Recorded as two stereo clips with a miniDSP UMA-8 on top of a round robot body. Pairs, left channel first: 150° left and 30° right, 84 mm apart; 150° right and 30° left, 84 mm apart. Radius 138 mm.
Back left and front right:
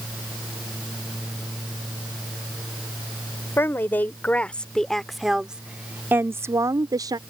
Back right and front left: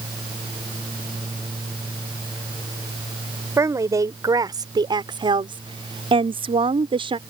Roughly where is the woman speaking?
Left.